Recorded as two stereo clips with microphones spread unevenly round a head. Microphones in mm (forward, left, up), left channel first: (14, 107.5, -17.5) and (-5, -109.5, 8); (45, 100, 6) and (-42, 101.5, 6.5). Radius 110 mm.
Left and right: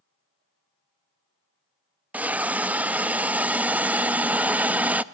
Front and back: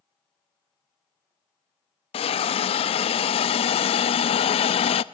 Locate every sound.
2.1 s a hiss: 10° right, 0.5 m